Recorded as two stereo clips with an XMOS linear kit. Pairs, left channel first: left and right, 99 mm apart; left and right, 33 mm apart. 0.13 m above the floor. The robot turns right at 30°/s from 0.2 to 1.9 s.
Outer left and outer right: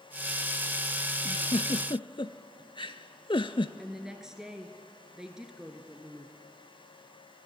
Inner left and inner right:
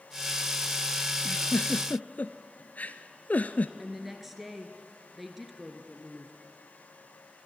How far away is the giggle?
About 0.6 m.